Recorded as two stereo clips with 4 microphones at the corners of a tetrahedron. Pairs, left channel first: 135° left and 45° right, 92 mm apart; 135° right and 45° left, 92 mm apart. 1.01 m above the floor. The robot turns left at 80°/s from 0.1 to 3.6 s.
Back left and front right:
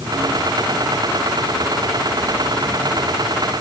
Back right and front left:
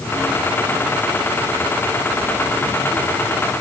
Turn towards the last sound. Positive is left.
No sound to turn to.